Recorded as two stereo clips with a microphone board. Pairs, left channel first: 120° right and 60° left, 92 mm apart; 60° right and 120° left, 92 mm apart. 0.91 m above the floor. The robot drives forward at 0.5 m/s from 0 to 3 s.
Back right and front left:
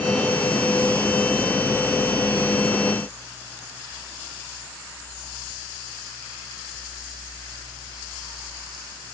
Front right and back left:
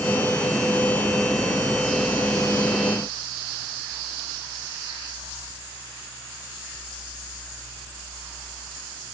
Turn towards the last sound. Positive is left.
No sound to turn to.